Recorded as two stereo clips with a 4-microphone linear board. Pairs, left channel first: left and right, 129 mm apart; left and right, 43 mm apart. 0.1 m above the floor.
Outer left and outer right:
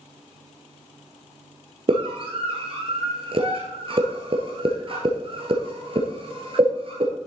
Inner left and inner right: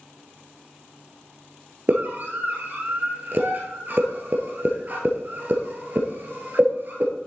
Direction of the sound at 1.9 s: 45° right (ahead or behind).